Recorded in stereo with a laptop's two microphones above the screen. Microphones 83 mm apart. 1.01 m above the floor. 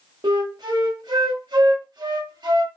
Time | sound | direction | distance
0.2 | a flute | 60° right (ahead or behind) | 0.7 m